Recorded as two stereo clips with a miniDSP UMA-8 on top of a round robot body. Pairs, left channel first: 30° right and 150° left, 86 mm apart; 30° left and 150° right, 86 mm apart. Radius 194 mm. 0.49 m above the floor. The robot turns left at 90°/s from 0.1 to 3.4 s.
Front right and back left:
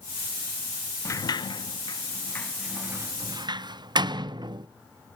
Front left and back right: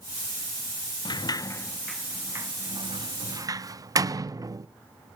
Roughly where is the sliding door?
Ahead.